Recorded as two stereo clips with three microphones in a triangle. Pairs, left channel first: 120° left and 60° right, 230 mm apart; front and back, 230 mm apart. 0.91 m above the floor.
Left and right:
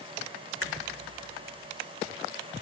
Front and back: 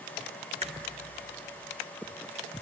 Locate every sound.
0.6 s a crack: 120° left, 1.4 m